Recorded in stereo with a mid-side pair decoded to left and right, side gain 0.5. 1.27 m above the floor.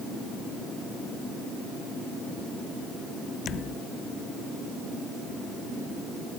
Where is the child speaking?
No child speaking in this recording.